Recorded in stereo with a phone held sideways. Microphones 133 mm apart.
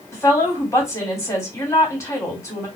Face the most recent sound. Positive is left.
turn(degrees=20)  # may be behind; listen again after turning